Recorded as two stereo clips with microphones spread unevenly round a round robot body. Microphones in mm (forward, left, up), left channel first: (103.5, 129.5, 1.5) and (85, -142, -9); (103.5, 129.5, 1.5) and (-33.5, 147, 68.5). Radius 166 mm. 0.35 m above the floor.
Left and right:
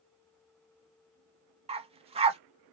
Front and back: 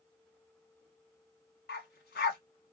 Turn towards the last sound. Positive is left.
turn(degrees=-20)